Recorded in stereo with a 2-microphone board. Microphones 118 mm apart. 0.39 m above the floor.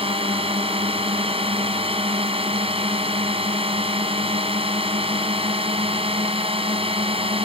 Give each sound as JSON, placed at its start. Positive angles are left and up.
{"t": 0.0, "sound": "a drone", "side_deg": -55}